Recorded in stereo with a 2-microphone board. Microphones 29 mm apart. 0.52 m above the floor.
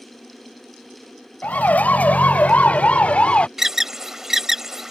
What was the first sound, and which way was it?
A siren, 60° left (ahead or behind).